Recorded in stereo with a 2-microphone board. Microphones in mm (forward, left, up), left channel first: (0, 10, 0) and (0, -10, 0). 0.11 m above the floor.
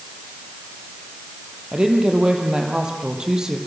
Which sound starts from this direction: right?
A woman speaking, at 1.7 s.